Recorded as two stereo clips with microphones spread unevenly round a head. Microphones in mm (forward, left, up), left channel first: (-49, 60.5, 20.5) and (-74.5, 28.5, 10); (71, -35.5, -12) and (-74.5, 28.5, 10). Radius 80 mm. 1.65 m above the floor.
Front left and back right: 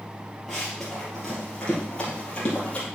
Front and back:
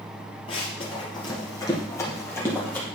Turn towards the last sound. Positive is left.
turn(degrees=60)